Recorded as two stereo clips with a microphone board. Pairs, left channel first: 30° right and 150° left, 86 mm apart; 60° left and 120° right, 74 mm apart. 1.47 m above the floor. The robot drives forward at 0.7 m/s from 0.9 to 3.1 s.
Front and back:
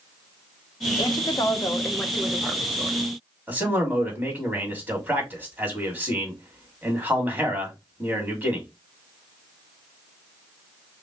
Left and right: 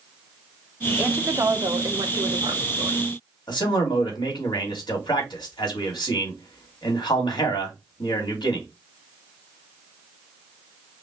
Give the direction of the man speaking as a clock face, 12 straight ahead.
9 o'clock.